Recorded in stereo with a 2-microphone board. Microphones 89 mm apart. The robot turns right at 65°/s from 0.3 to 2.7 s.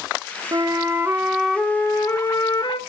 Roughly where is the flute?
Ahead right.